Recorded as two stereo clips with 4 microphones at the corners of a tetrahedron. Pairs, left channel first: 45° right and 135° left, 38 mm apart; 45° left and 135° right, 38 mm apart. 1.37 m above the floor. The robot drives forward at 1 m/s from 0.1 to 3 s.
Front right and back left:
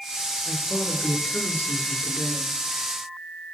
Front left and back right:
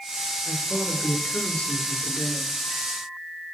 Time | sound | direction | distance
0.5 | a woman speaking | 10° right | 5.5 m